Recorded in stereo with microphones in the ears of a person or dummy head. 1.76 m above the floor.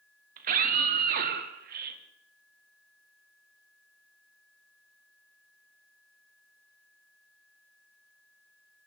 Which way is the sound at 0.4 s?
50° right (ahead or behind).